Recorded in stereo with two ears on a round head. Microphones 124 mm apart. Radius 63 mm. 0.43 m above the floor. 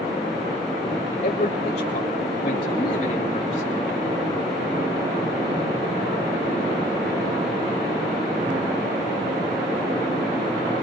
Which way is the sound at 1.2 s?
55° left (ahead or behind).